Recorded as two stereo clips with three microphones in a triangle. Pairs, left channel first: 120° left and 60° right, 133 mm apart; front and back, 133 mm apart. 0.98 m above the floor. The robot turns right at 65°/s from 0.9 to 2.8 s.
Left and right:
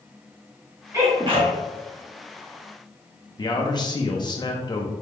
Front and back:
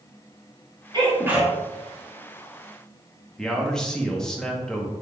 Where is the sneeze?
130° right, 1.5 m; by 1.5 s 90° right, 1.5 m.